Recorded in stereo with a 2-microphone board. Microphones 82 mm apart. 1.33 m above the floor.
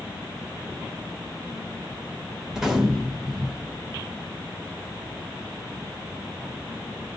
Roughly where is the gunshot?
Centre.